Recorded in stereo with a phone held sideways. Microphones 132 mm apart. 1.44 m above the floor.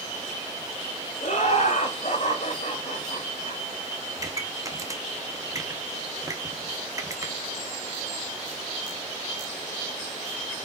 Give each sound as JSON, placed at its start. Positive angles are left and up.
{"t": 1.2, "sound": "laughter", "side_deg": 55, "distance_m": 3.5}
{"t": 4.2, "sound": "a pop", "side_deg": -25, "distance_m": 1.4}